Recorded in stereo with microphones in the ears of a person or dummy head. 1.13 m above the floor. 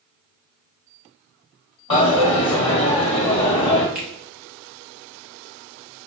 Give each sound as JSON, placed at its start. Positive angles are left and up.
{"t": 1.9, "sound": "a dropped coin", "side_deg": 30, "distance_m": 1.3}
{"t": 4.0, "sound": "a finger snap", "side_deg": -5, "distance_m": 1.1}